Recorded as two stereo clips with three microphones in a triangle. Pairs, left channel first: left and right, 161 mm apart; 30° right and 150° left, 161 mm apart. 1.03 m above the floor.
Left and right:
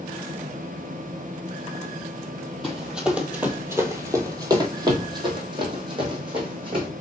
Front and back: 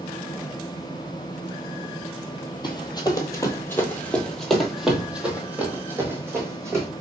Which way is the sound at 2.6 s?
Straight ahead.